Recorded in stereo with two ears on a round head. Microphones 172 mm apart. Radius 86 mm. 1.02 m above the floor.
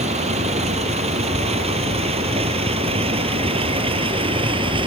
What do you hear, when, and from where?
0.0 s a vehicle: 35° right (ahead or behind); by 4.9 s 30° right (ahead or behind)